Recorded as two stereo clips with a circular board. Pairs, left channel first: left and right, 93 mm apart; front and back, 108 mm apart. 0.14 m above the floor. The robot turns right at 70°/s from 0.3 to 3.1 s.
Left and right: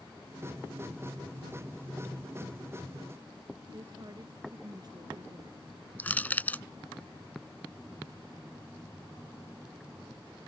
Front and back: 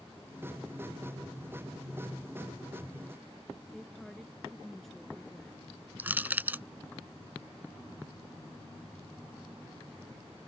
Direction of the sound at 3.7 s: 85° right.